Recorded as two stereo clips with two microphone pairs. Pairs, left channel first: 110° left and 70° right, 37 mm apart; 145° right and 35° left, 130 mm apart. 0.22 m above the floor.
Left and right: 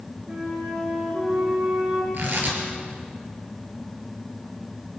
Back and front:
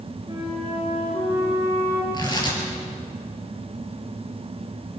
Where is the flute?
25° right, 9.5 m.